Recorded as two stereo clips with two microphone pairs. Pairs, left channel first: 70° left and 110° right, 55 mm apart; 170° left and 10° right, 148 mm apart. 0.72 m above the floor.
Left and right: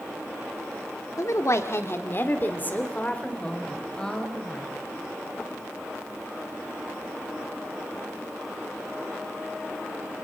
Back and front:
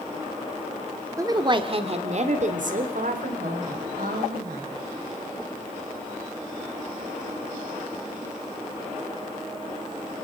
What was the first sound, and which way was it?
A woman speaking, 55° left.